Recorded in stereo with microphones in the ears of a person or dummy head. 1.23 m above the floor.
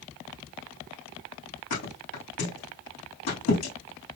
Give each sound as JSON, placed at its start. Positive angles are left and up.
{"t": 1.7, "sound": "a thud", "side_deg": 60, "distance_m": 4.5}